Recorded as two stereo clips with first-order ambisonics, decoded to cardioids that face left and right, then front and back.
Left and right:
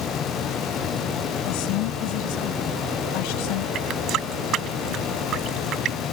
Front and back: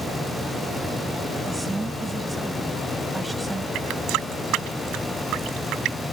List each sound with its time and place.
1.5 s a woman speaking: 95° left
3.8 s a running tap: 140° right